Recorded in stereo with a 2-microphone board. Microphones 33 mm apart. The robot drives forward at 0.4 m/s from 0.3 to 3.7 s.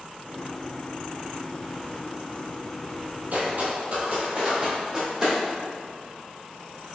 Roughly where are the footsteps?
Right.